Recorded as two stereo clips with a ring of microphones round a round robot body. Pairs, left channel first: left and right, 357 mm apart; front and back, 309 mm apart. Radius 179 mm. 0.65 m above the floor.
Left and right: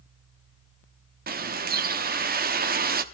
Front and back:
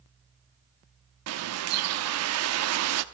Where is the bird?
150° right, 1.0 m.